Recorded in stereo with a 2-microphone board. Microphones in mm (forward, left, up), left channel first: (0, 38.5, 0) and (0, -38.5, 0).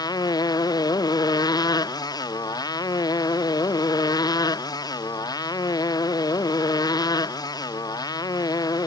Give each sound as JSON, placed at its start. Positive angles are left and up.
{"t": 0.0, "sound": "a motorcycle", "side_deg": 50}